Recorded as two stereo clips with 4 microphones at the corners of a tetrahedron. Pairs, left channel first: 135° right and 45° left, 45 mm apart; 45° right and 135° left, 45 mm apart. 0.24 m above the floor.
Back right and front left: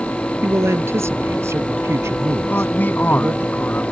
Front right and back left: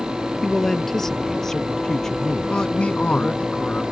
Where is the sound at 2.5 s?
105° right.